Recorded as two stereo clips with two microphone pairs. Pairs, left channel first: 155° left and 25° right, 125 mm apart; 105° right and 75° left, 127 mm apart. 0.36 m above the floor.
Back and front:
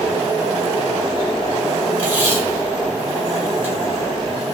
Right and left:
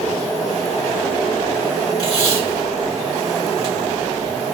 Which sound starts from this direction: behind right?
Tape being pulled, at 2.0 s.